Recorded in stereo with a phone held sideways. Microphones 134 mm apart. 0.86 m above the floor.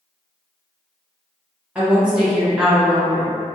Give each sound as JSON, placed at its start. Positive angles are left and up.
{"t": 1.8, "sound": "a woman speaking", "side_deg": -10, "distance_m": 0.8}